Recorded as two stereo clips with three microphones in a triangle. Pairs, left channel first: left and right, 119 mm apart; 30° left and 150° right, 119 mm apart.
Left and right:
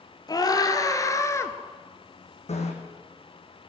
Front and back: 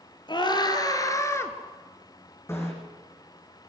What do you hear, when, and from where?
0.3 s a scream: 55° left, 2 m; by 1.5 s 65° left, 1.6 m
2.5 s a bicycle bell: 95° left, 3.5 m